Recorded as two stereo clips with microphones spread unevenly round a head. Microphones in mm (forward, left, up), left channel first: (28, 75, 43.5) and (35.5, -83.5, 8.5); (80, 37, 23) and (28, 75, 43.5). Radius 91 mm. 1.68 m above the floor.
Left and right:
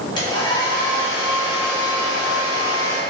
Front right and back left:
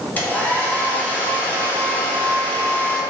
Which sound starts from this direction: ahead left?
A hair dryer, at 0.2 s.